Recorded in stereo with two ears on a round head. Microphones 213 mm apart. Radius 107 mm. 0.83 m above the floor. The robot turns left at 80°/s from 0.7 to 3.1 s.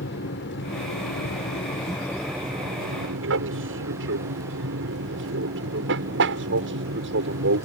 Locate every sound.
0.0 s an aircraft: 50° left (ahead or behind); by 7.7 s 50° right (ahead or behind)